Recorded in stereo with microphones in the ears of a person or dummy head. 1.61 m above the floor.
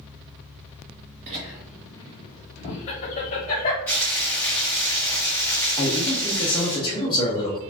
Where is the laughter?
25° right (ahead or behind), 0.6 m; by 3.8 s 40° left (ahead or behind), 1.9 m.